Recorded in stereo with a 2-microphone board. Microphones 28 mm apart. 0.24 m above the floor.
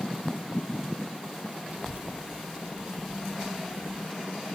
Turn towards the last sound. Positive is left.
turn(degrees=0)  # may be behind; listen again after turning